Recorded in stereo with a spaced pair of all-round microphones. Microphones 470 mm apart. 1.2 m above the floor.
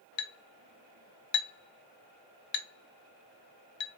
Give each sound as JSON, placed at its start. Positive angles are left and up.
{"t": 0.2, "sound": "a clink", "side_deg": 70, "distance_m": 0.6}